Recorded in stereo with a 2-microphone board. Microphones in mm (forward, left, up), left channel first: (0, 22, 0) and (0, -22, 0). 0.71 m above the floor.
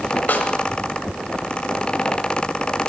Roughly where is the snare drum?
Left.